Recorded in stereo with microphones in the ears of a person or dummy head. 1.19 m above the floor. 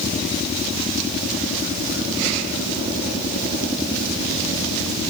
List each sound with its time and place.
Only background noise.